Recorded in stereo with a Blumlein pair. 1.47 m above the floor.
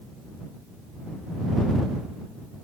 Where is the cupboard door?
I don't hear a cupboard door.